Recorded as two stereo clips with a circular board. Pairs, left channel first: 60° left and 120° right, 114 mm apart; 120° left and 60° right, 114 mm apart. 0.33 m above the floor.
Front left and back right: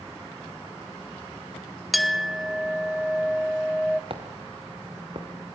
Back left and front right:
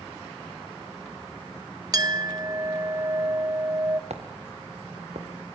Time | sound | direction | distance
1.9 | a clink | 30° right | 0.5 m
4.1 | footsteps | 80° right | 3 m